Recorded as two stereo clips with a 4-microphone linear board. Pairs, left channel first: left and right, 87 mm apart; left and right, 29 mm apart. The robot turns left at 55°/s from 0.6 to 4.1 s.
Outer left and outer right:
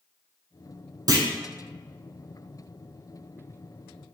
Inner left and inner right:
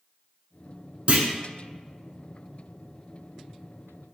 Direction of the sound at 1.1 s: 45° right (ahead or behind).